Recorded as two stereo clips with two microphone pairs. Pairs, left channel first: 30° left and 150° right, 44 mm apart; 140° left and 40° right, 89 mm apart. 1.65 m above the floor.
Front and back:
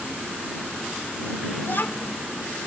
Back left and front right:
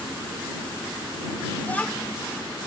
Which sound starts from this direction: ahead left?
A child speaking, at 1.6 s.